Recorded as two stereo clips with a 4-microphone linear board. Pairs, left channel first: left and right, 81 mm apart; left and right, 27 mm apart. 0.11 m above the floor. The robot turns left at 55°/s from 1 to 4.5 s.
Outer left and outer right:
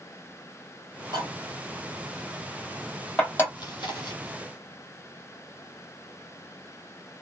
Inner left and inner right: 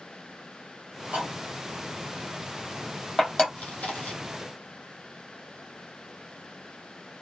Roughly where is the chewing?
Behind left.